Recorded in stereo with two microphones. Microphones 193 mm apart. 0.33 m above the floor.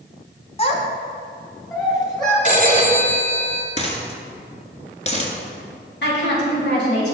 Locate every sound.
0.6 s a child speaking: 30° left (ahead or behind), 1.6 m; by 2.4 s 20° left (ahead or behind), 3.5 m
2.5 s a phone ringing: 40° left (ahead or behind), 1.3 m
3.8 s a dropped coin: 35° left (ahead or behind), 1.4 m
6.0 s a woman speaking: 65° left (ahead or behind), 3 m